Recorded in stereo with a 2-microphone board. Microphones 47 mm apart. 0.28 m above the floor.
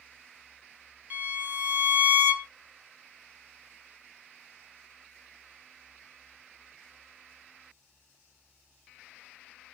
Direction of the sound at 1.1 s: 35° right (ahead or behind).